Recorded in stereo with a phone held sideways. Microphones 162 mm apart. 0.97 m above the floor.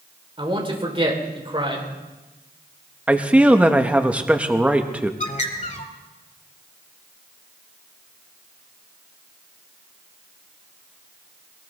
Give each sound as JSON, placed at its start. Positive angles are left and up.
{"t": 0.4, "sound": "a man speaking", "side_deg": -35, "distance_m": 3.5}
{"t": 3.1, "sound": "a man speaking", "side_deg": -10, "distance_m": 1.1}
{"t": 5.2, "sound": "a bird", "side_deg": 50, "distance_m": 1.5}